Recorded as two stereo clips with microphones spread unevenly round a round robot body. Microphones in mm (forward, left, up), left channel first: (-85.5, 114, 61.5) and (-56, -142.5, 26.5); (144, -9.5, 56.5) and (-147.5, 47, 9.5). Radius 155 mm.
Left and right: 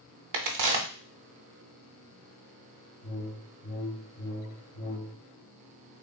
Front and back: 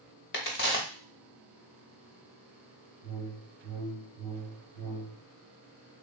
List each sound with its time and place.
0.3 s a crack: 65° right, 0.8 m
3.0 s a whoosh: 45° left, 1.6 m